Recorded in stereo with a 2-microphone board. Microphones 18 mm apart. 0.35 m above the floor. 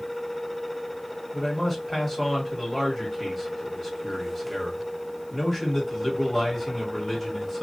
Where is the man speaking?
15° left (ahead or behind), 1.5 m.